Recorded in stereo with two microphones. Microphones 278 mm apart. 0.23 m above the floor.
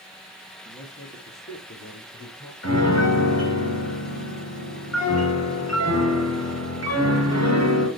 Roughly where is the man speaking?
Left.